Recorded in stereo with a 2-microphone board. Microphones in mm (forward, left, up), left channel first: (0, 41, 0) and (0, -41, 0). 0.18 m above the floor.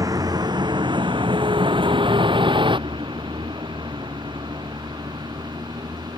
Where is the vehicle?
45° right (ahead or behind); by 6.2 s 60° right (ahead or behind).